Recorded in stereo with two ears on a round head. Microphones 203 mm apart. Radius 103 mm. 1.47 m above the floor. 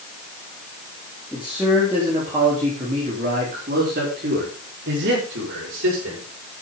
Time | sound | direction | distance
1.3 | a man speaking | 5° right (ahead or behind) | 3.5 m